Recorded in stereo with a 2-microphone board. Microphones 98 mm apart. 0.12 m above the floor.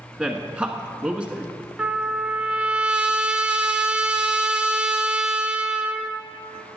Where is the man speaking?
10° right (ahead or behind), 1.0 m.